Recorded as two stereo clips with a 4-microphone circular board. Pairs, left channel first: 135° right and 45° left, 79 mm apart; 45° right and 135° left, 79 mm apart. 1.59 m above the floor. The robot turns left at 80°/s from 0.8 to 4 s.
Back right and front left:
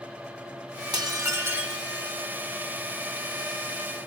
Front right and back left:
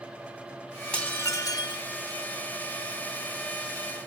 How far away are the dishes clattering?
About 1.5 m.